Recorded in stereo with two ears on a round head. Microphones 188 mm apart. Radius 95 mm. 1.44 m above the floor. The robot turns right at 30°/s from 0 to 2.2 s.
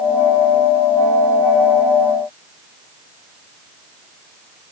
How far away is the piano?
I don't hear a piano.